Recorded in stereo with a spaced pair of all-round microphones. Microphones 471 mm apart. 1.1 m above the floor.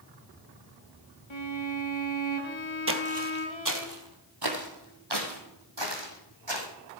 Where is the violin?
70° left (ahead or behind), 1.4 m.